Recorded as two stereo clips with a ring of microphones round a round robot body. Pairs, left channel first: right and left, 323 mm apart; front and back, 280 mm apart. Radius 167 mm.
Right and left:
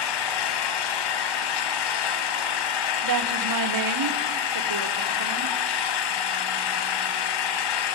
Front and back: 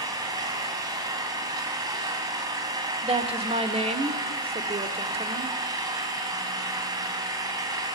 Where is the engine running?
100° right, 2 m.